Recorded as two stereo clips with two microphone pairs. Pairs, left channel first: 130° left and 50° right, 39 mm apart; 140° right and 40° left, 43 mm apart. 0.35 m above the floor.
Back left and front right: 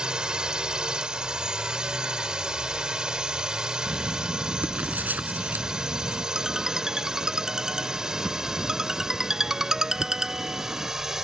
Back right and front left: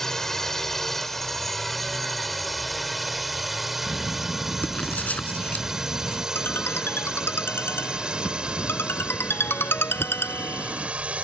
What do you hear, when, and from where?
0.0 s a drone: 75° right; by 11.2 s 20° left
3.9 s writing: 90° right
6.3 s a ringtone: 125° right